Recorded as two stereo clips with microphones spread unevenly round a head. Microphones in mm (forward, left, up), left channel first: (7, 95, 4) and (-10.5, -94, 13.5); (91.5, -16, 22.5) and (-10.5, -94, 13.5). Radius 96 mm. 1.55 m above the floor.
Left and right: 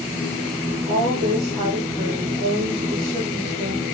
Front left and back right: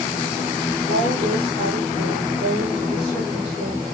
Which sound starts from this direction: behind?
A woman speaking, at 0.9 s.